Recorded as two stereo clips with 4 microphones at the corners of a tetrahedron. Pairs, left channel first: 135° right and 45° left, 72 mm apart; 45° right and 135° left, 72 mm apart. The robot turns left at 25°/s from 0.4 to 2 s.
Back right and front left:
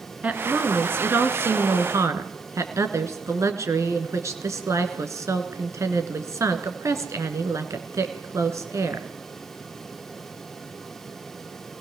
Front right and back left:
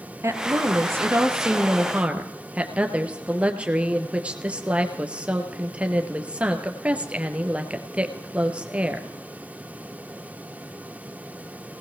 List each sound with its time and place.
0.2 s a woman speaking: 110° left, 2.5 m; by 9.1 s 70° left, 2.5 m